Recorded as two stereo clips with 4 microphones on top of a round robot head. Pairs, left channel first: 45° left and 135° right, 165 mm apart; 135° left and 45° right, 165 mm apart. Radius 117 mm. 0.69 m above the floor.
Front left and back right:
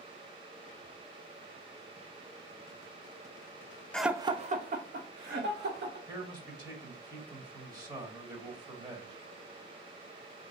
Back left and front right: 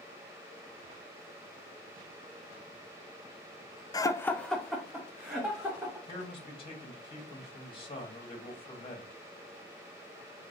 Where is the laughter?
120° left, 0.5 m; by 6.0 s 125° right, 1.8 m.